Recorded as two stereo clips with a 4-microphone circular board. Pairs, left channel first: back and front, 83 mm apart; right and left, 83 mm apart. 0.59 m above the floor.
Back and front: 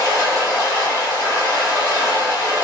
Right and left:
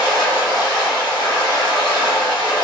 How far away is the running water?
About 1.3 m.